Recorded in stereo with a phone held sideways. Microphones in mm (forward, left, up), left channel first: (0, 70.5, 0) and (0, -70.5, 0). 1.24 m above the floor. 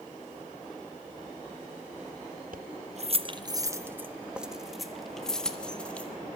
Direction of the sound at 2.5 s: 70° right (ahead or behind).